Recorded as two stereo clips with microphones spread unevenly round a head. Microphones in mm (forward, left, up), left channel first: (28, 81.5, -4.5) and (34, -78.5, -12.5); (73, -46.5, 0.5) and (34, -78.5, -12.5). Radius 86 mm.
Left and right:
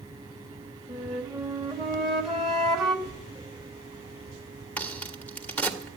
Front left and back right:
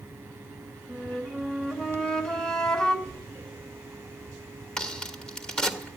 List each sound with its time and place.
0.9 s a flute: 5° left, 1.8 m
3.0 s a door slam: 65° left, 9.5 m
4.8 s a crack: 20° left, 1.5 m